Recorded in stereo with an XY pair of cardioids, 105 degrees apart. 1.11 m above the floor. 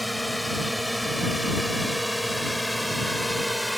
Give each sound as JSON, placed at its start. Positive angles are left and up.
{"t": 0.0, "sound": "a drone", "azimuth_deg": 0}